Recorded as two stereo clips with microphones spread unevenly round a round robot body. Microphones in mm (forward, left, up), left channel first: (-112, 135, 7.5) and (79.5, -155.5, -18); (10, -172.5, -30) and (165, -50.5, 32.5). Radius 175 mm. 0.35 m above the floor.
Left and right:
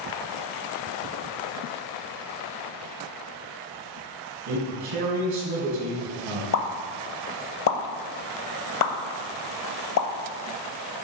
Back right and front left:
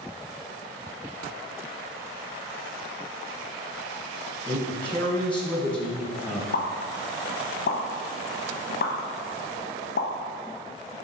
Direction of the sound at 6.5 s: 170° left.